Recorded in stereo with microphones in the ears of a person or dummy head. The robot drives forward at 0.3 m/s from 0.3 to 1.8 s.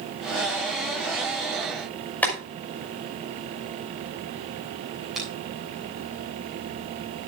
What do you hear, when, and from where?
2.2 s boiling: 10° left (ahead or behind), 5.5 m
5.2 s a finger snap: 5° right (ahead or behind), 8.5 m